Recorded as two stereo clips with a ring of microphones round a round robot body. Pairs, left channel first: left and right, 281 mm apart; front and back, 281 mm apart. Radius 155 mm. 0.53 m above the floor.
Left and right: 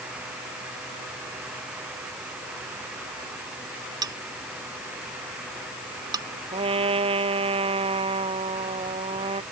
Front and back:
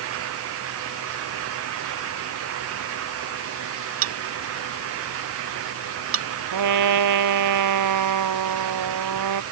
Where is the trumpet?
165° right.